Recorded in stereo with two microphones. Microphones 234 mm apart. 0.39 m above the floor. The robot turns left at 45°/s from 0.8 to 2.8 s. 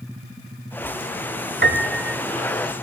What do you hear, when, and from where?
1.6 s a piano: 55° right (ahead or behind), 0.7 m; by 2.2 s 80° right, 0.7 m